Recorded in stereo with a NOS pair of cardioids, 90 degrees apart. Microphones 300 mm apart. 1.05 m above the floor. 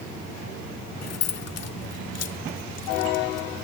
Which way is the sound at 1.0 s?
55° left.